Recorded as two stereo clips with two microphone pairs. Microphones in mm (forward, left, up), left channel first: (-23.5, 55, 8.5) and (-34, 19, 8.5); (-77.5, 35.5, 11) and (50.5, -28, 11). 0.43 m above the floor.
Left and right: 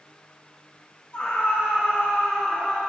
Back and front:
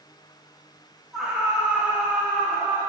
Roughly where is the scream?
Ahead left.